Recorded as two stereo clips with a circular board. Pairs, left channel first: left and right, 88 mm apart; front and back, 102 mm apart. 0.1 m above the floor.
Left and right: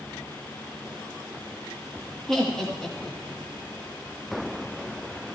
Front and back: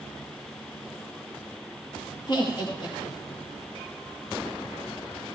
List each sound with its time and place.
2.3 s laughter: 10° left, 2.5 m